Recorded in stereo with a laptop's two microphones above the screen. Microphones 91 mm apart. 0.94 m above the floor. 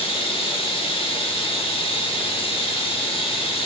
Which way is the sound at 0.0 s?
80° left.